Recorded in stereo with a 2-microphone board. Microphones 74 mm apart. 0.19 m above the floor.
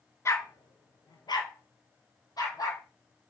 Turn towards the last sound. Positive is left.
turn(degrees=55)  # may be behind; listen again after turning